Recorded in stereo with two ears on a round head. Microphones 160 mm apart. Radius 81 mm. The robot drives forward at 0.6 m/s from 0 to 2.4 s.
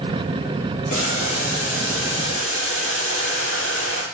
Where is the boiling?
45° left (ahead or behind), 4 m; by 4.0 s 35° left (ahead or behind), 5 m.